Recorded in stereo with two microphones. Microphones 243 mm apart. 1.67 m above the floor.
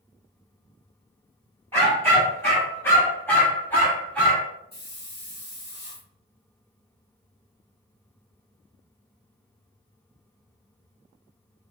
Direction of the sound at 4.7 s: 40° left (ahead or behind).